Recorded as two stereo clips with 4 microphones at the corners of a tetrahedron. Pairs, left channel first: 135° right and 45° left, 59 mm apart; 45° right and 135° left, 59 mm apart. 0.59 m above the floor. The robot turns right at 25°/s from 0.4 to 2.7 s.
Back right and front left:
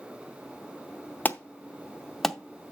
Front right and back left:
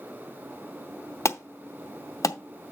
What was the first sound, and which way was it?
An alarm, 80° right.